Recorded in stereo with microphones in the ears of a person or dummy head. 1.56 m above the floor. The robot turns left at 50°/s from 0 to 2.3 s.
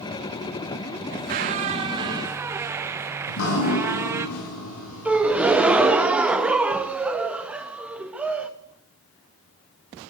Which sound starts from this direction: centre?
A gasp, at 5.0 s.